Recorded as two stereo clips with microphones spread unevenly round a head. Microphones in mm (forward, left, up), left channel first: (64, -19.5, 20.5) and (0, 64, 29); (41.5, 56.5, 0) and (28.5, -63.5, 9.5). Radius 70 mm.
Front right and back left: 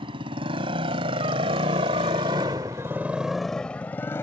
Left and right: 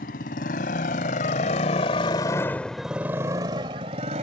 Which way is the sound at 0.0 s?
95° left.